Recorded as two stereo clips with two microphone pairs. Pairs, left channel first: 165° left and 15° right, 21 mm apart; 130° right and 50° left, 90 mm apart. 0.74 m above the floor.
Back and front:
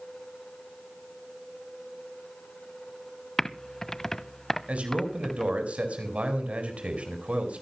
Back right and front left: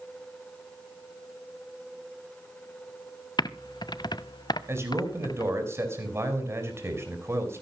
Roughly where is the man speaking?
Ahead.